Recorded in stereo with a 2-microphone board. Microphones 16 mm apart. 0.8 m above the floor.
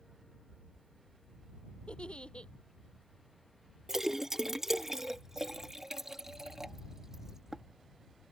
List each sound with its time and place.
1.9 s a giggle: 80° left
3.9 s a splash: 25° right (ahead or behind)